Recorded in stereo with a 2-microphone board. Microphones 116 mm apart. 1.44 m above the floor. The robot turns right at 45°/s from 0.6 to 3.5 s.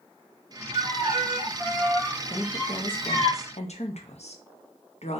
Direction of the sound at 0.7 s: 50° right.